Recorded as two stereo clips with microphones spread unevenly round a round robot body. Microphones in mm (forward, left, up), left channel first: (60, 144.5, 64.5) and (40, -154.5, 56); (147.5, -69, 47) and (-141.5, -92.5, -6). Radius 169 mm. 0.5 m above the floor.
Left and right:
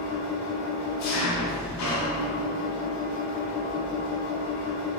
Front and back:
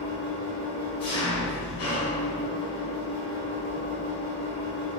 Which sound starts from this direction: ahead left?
An engine running, at 0.0 s.